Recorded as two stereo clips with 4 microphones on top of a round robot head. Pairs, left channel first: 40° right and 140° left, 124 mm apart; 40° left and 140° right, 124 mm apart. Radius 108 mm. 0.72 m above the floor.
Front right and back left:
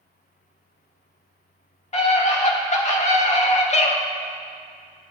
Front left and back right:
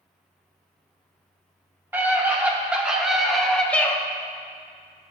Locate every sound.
1.9 s a scream: 70° right, 2.5 m; by 4.0 s 35° right, 1.2 m